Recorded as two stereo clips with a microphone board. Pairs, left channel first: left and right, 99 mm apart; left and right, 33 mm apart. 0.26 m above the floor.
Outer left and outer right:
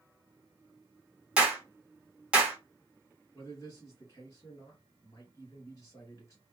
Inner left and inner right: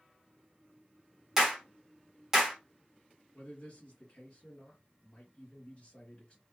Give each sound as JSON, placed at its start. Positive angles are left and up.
{"t": 1.4, "sound": "a clap", "side_deg": -10, "distance_m": 1.1}
{"t": 3.3, "sound": "a man speaking", "side_deg": 30, "distance_m": 1.8}